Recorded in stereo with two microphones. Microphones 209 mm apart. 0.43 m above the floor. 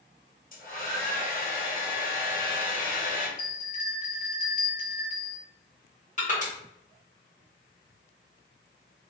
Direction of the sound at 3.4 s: 40° left (ahead or behind).